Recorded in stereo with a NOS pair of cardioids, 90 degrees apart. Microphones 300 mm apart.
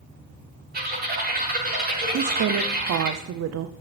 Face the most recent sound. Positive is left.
turn(degrees=-55)